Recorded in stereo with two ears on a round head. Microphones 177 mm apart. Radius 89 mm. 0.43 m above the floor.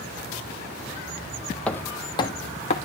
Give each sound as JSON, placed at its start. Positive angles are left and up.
{"t": 1.7, "sound": "footsteps", "side_deg": 5, "distance_m": 0.9}